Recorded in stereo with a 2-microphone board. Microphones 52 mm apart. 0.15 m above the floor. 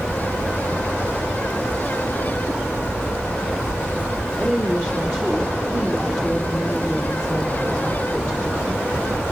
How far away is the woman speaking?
About 4 m.